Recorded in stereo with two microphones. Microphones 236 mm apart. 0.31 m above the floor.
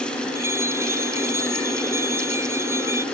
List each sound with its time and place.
0.3 s a bell: 10° right (ahead or behind)